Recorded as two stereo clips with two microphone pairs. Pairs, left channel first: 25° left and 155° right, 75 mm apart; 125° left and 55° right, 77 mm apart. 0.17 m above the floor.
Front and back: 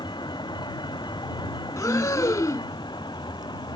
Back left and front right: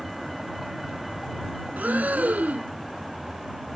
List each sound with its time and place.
0.0 s a vehicle: 35° left
1.8 s breathing: 5° left